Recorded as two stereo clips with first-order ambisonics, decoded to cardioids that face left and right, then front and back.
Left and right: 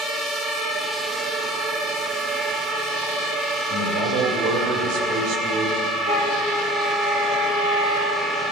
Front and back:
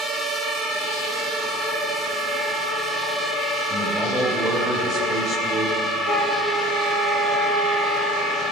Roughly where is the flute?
Right.